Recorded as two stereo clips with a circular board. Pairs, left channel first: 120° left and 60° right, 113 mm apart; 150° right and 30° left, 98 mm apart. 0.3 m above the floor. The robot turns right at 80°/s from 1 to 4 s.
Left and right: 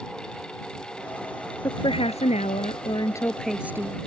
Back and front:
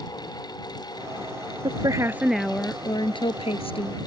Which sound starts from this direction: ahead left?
A woman speaking, at 1.6 s.